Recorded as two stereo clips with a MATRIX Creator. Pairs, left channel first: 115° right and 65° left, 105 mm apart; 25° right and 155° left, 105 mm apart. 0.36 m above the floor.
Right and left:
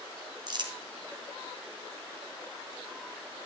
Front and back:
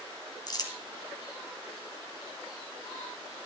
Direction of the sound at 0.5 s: 25° left.